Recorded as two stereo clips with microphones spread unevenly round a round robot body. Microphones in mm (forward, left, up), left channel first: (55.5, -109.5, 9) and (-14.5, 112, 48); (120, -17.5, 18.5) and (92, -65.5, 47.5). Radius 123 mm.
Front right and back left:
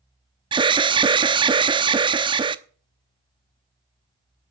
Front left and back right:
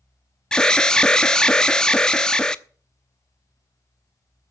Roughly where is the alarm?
Ahead left.